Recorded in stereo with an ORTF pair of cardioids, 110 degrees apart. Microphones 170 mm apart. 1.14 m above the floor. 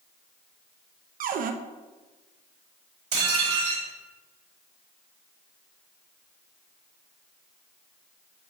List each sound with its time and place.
1.2 s a cupboard door: 60° right, 0.7 m
3.1 s dishes clattering: 50° right, 4 m